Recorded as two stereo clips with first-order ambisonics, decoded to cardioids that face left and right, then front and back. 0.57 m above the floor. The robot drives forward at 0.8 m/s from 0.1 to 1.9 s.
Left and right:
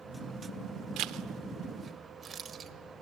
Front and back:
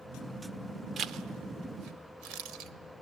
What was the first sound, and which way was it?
A zipper, 120° right.